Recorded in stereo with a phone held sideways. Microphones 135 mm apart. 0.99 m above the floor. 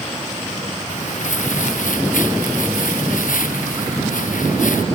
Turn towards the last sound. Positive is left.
turn(degrees=75)  # may be behind; listen again after turning